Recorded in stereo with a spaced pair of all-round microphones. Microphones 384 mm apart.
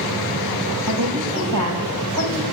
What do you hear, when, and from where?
0.9 s a woman speaking: 85° right, 8.5 m